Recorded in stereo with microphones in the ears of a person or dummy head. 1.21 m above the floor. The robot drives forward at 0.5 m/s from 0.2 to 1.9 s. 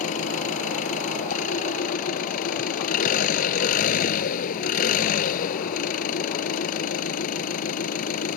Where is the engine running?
45° left (ahead or behind); by 8.4 s 50° left (ahead or behind).